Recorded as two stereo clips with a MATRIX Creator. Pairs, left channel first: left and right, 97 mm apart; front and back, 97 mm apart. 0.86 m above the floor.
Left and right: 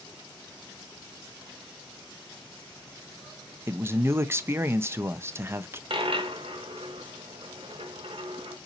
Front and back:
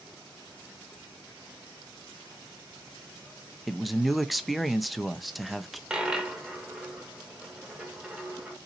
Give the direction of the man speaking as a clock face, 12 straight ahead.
3 o'clock.